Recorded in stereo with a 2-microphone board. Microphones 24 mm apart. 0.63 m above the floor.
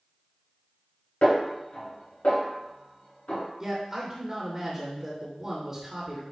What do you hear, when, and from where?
1.2 s a snare drum: 65° left (ahead or behind), 3.5 m
3.6 s a man speaking: 25° right (ahead or behind), 2.5 m